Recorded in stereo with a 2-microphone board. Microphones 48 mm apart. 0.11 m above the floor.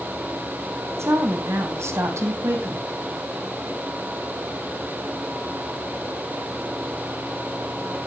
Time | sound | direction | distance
1.0 | a woman speaking | 70° right (ahead or behind) | 3.5 m